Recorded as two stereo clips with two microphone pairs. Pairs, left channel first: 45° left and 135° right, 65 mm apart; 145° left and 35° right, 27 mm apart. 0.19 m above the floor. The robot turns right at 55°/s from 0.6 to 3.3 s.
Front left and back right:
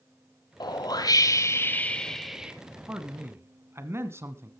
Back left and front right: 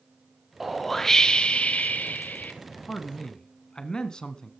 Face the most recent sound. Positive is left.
turn(degrees=-165)